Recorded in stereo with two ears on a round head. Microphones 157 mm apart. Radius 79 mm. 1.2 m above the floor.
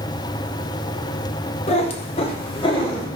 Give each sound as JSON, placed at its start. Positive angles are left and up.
{"t": 1.7, "sound": "a cat meowing", "side_deg": 35, "distance_m": 0.7}